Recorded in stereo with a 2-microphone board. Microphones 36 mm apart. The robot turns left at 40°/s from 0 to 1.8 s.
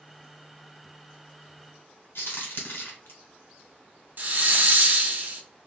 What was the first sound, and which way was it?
A crack, 80° left.